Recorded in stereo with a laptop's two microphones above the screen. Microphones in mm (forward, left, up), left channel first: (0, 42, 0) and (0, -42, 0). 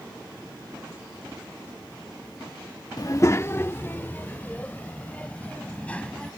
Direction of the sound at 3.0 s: 45° left (ahead or behind).